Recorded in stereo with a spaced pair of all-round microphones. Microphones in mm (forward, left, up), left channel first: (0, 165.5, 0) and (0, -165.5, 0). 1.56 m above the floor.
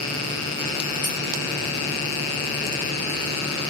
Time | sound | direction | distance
1.0 | scissors | 40° left (ahead or behind) | 1.8 m